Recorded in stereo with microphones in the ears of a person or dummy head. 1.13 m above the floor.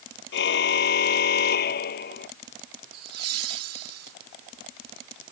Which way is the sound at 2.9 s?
80° right.